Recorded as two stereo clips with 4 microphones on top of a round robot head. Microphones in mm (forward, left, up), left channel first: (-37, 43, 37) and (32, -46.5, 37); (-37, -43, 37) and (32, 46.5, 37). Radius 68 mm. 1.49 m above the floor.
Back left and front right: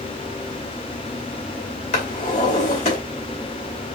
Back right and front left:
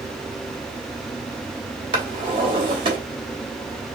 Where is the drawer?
95° left, 2.5 m.